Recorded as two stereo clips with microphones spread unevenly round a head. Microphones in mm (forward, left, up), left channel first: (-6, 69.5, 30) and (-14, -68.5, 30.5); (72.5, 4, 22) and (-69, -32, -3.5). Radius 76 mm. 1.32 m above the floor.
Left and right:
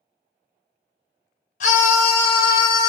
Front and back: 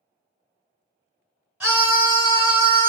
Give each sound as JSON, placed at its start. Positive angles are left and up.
{"t": 1.6, "sound": "a scream", "azimuth_deg": 110, "distance_m": 0.8}